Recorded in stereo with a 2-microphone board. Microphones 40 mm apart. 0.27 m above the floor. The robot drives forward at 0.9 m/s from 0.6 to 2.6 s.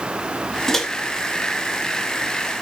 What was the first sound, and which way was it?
A microwave, 10° left (ahead or behind).